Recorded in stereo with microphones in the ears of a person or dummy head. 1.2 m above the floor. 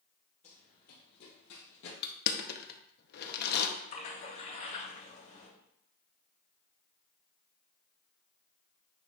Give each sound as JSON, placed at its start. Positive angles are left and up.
{"t": 0.4, "sound": "running footsteps", "side_deg": 40, "distance_m": 2.5}
{"t": 2.0, "sound": "crushing", "side_deg": 55, "distance_m": 0.8}
{"t": 3.9, "sound": "a splash", "side_deg": 45, "distance_m": 3.5}